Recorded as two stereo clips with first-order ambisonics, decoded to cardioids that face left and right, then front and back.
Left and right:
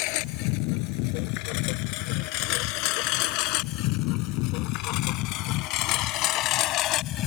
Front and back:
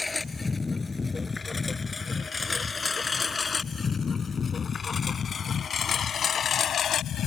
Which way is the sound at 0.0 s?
80° left.